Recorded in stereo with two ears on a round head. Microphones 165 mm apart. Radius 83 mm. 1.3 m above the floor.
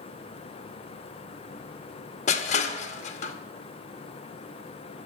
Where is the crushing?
40° left (ahead or behind), 1.0 m.